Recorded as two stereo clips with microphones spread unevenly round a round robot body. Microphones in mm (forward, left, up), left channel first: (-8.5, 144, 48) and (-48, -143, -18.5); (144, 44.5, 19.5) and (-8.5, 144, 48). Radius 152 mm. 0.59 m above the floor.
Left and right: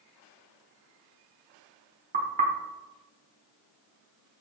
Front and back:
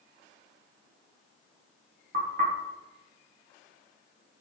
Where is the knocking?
155° right, 1.0 m.